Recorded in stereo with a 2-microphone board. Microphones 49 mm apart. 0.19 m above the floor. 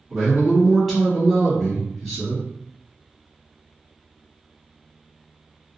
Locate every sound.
0.1 s a man speaking: centre (ahead or behind), 1.4 m